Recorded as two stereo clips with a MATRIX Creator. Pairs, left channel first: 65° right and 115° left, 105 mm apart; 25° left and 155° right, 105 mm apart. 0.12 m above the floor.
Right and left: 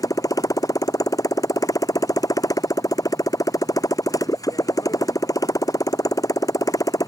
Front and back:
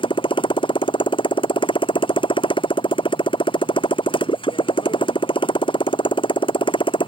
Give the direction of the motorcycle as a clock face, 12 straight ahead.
12 o'clock.